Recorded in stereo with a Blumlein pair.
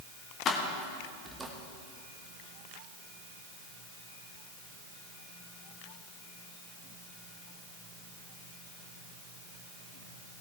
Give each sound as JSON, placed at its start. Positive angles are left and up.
{"t": 0.5, "sound": "keys jangling", "azimuth_deg": 30, "distance_m": 1.4}